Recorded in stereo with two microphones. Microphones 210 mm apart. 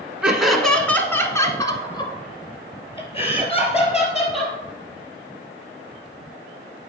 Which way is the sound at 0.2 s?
5° right (ahead or behind).